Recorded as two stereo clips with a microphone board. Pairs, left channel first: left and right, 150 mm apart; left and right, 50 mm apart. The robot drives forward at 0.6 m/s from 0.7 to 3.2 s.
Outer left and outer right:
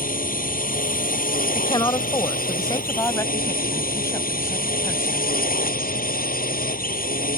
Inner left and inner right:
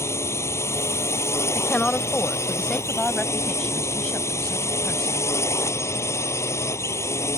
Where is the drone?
65° left (ahead or behind); by 7.4 s 70° left (ahead or behind).